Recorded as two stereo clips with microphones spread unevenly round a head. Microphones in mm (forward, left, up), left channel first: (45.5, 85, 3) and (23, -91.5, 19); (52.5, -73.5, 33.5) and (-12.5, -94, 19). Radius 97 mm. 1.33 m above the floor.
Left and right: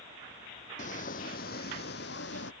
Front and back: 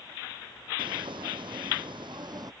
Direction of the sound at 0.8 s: 140° left.